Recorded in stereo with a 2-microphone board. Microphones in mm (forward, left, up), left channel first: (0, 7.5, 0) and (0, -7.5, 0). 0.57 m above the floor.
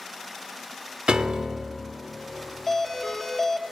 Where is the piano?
85° right, 0.7 m.